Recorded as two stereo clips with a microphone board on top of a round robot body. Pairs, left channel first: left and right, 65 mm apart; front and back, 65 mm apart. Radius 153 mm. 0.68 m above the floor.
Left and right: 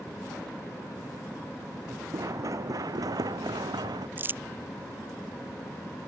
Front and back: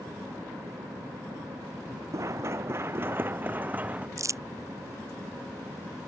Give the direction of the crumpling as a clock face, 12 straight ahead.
5 o'clock.